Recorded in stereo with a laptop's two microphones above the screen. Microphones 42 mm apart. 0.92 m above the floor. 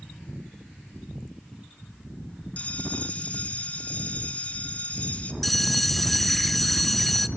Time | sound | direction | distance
2.6 | a bell | 35° left (ahead or behind) | 0.9 m
5.4 | a bell | 5° left (ahead or behind) | 0.6 m